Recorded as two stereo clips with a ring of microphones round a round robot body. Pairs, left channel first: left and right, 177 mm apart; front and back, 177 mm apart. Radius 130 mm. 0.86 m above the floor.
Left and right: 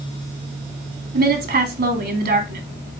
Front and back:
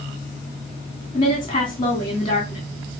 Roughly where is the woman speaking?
Right.